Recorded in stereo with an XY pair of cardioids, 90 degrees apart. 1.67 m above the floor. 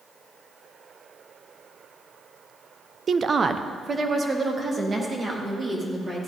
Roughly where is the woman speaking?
Ahead right.